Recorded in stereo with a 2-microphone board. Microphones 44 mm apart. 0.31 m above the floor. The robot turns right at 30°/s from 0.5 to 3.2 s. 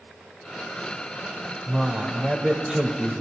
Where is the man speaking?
160° right, 1.0 m; by 3.2 s 115° right, 1.0 m.